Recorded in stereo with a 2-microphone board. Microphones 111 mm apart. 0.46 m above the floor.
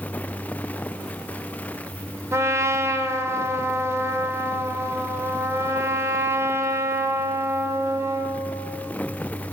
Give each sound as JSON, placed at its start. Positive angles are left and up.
{"t": 2.3, "sound": "a trumpet", "side_deg": -25, "distance_m": 1.4}